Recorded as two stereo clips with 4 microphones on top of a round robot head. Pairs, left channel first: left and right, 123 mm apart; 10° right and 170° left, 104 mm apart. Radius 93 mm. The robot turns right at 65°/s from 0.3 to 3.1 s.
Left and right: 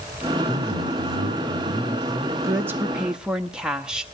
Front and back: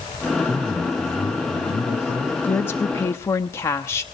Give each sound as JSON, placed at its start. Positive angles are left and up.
{"t": 0.4, "sound": "a man speaking", "azimuth_deg": -145, "distance_m": 5.5}
{"t": 2.4, "sound": "a woman speaking", "azimuth_deg": -60, "distance_m": 0.9}